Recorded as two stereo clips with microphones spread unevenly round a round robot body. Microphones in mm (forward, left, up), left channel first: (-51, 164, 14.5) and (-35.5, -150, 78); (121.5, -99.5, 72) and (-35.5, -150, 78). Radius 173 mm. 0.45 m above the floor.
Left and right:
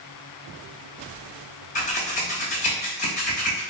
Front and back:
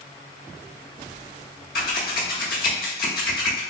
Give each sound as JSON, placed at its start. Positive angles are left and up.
{"t": 1.8, "sound": "scissors", "azimuth_deg": 35, "distance_m": 0.8}